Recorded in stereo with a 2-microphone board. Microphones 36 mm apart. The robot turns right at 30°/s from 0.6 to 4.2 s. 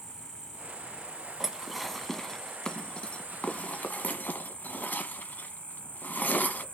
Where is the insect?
165° right, 3 m; by 6.7 s 60° right, 3 m.